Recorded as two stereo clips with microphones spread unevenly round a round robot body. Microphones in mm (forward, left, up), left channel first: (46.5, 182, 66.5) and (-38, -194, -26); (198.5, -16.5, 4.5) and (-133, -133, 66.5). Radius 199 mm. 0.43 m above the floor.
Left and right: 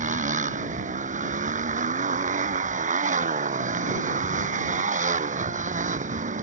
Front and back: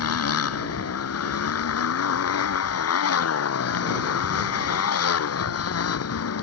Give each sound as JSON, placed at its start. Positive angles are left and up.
{"t": 0.0, "sound": "a motorcycle", "azimuth_deg": -30}